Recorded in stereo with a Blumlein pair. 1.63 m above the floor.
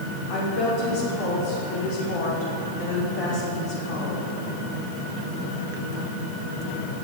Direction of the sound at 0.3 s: 45° left.